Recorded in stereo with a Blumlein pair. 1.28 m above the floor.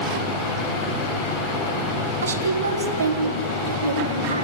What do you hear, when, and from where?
2.2 s a woman speaking: 70° right, 3.5 m; by 4.4 s 75° right, 4.5 m